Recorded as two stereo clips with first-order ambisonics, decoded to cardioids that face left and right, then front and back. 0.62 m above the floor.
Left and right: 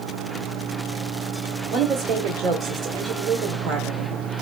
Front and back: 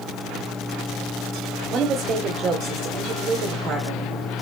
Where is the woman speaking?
130° right, 1.6 m.